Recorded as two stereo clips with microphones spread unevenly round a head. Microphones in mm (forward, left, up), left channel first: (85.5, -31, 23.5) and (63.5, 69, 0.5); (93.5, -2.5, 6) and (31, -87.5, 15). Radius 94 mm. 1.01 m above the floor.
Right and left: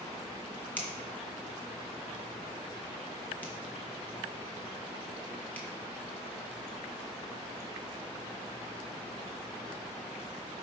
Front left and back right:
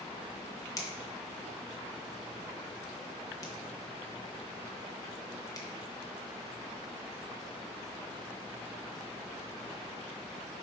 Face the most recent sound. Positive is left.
turn(degrees=0)